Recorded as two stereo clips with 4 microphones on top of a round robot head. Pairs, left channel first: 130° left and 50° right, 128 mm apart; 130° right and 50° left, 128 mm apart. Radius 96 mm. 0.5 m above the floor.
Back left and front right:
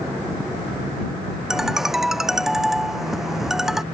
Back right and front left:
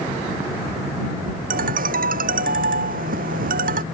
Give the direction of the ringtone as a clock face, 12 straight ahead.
11 o'clock.